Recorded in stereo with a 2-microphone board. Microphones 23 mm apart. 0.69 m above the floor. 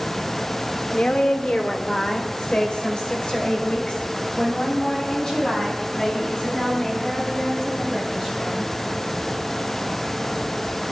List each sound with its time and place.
0.9 s a woman speaking: 70° left (ahead or behind), 1.5 m; by 8.7 s 30° left (ahead or behind), 6.5 m